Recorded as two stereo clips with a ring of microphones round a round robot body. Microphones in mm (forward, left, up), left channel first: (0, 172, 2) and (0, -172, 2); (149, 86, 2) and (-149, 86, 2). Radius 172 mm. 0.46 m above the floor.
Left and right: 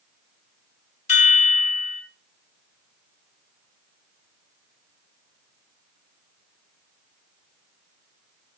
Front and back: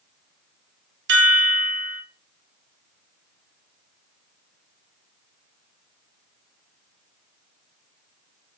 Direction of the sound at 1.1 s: 155° left.